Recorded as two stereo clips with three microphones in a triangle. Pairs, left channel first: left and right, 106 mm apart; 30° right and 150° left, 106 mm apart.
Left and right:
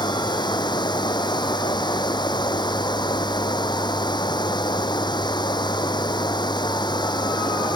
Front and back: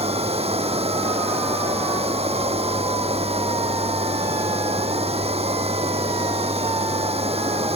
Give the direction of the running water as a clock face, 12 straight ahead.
7 o'clock.